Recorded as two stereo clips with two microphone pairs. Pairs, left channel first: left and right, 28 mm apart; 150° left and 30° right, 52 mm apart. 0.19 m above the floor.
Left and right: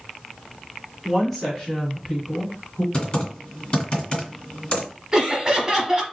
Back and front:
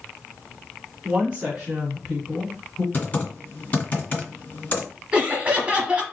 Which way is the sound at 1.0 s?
10° right.